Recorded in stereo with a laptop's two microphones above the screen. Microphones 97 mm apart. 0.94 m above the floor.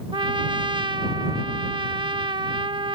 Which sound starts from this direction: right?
A trumpet, at 0.1 s.